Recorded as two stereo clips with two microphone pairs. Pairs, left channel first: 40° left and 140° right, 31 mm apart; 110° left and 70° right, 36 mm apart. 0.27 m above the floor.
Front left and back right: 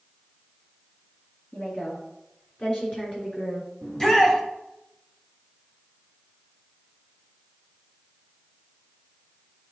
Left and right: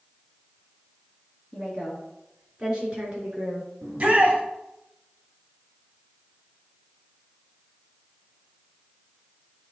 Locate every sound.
1.5 s a woman speaking: 20° left, 2.5 m; by 3.7 s 15° right, 3.5 m
3.8 s a shout: 25° right, 1.9 m